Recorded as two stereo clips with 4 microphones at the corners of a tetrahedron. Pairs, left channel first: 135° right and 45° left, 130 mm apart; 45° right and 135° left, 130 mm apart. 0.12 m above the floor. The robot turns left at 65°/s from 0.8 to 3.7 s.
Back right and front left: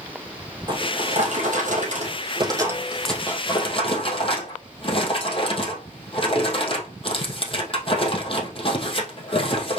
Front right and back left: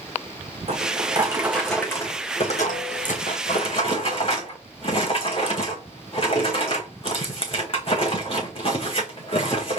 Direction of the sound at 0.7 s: 100° left.